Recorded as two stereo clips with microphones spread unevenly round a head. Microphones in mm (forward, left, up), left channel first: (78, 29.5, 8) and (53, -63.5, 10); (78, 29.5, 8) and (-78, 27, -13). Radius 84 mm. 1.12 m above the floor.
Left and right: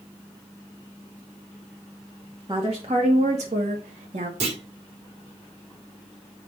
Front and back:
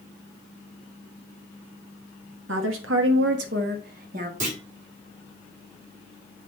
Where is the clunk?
130° right, 3 m.